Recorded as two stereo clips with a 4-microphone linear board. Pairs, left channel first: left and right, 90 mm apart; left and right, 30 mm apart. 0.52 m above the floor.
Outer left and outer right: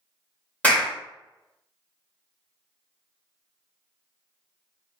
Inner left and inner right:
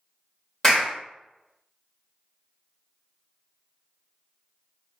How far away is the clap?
About 1.8 m.